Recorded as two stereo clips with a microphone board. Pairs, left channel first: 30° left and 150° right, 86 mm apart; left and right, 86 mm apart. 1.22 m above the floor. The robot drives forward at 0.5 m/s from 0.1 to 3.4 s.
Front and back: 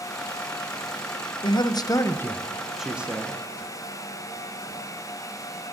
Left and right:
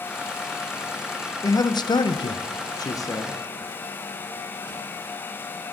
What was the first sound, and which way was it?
A man speaking, 50° left.